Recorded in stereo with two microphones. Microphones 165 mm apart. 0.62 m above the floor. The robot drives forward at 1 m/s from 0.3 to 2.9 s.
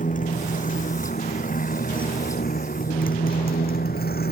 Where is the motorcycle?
50° left (ahead or behind); by 4.3 s 65° left (ahead or behind).